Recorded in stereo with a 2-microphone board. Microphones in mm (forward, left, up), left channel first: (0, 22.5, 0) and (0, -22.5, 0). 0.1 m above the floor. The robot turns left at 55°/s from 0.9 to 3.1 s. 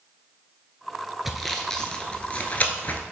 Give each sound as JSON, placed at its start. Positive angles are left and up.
{"t": 1.2, "sound": "sawing", "side_deg": -5, "distance_m": 0.9}